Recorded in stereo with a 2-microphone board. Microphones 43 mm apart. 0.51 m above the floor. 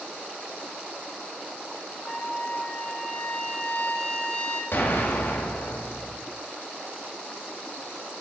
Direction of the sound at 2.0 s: 35° left (ahead or behind).